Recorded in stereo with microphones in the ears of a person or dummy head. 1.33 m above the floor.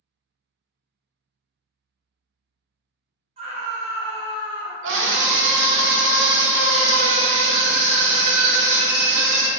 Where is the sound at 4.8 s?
70° right (ahead or behind), 0.5 m.